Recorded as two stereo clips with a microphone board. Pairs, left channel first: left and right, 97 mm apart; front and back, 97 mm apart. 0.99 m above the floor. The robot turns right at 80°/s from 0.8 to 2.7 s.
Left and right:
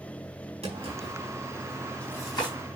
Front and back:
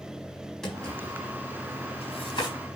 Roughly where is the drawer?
Right.